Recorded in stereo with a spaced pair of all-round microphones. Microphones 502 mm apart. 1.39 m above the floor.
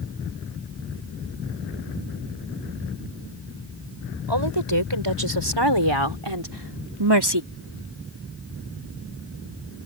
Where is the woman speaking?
55° right (ahead or behind); by 7.4 s 50° right (ahead or behind).